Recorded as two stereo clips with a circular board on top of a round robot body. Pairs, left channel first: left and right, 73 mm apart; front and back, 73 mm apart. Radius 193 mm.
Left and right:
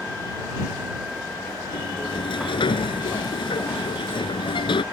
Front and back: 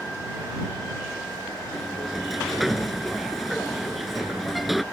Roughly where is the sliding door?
Left.